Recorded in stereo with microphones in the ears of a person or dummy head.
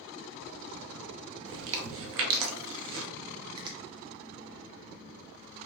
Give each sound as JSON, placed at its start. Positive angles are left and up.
{"t": 1.5, "sound": "chewing", "side_deg": -70, "distance_m": 0.7}
{"t": 3.6, "sound": "a finger snap", "side_deg": -25, "distance_m": 0.6}